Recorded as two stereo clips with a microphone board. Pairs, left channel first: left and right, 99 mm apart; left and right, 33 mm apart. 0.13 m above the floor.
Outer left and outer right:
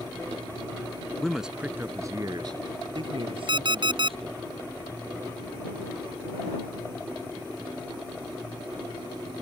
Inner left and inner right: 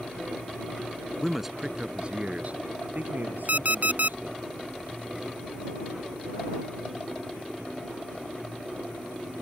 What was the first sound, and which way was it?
A man speaking, 5° left (ahead or behind).